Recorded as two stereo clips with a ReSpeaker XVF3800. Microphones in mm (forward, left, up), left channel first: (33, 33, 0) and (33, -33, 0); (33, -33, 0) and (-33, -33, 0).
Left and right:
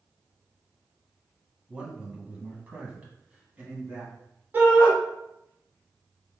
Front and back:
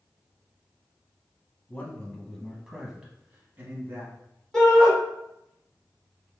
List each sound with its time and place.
1.7 s a man speaking: 30° right, 1.0 m; by 4.1 s 150° right, 1.4 m
4.5 s a shout: 75° right, 1.1 m